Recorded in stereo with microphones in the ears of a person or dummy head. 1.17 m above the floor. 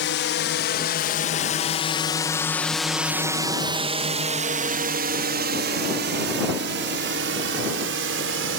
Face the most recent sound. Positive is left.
turn(degrees=-60)  # may be behind; listen again after turning